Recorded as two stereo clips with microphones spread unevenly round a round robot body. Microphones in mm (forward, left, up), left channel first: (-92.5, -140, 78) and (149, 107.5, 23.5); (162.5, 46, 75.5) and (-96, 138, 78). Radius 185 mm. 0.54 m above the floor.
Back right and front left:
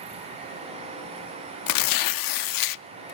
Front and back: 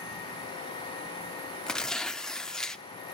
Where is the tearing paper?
105° right, 0.5 m.